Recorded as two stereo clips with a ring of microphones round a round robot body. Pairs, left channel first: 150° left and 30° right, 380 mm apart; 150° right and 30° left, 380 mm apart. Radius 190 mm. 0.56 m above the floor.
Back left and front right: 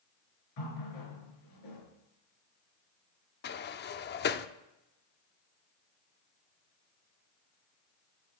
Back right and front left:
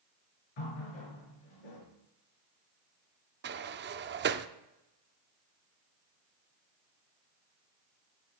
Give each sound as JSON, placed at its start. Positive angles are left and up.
{"t": 0.6, "sound": "a running tap", "azimuth_deg": -170, "distance_m": 6.5}
{"t": 3.4, "sound": "a sliding door", "azimuth_deg": 90, "distance_m": 0.7}